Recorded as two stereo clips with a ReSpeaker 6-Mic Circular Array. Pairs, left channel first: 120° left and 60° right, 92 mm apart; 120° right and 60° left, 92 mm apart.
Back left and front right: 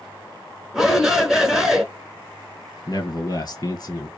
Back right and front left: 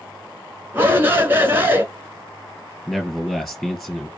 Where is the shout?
20° left, 1.1 m.